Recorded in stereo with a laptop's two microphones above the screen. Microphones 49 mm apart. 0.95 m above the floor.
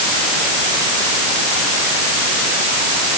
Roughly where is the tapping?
No tapping in this recording.